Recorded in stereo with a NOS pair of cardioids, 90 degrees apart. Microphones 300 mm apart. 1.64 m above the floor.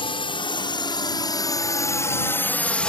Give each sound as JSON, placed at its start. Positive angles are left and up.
{"t": 0.0, "sound": "a drone", "azimuth_deg": 15}